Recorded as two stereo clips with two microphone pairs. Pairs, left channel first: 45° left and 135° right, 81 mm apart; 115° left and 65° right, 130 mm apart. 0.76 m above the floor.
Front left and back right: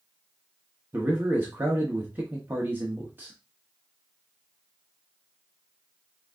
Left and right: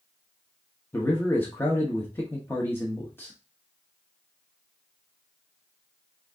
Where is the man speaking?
175° left, 1.1 m.